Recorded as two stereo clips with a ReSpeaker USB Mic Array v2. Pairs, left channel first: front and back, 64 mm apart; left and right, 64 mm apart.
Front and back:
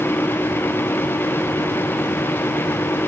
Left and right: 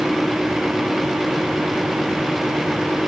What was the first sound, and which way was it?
Only background noise.